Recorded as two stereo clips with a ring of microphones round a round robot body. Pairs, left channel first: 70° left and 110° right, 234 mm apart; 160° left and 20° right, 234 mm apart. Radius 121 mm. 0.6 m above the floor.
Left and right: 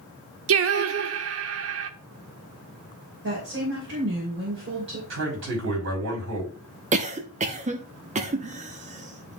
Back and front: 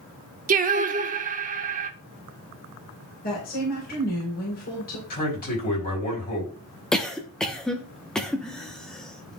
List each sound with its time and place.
0.5 s singing: 80° right, 0.7 m
3.2 s a woman speaking: 150° right, 3 m
5.1 s a man speaking: 150° right, 5 m
6.9 s a cough: 120° right, 0.9 m